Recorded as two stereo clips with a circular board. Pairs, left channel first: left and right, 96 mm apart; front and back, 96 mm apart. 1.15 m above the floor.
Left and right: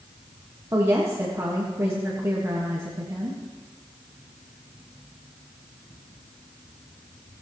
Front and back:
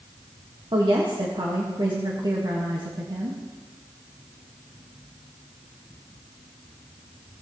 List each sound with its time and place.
0.7 s a woman speaking: 145° right, 1.5 m